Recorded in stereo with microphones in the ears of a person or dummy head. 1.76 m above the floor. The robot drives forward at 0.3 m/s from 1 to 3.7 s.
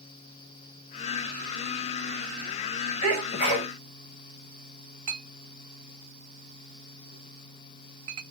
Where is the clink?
30° right (ahead or behind), 1.2 m.